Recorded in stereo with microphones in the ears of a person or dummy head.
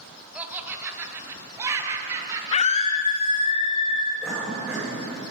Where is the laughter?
5° right (ahead or behind), 1.3 m; by 3.5 s 25° right (ahead or behind), 3 m.